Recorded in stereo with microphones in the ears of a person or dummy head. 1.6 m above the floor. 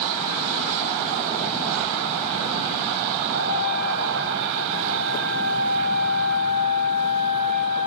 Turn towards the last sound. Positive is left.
turn(degrees=-80)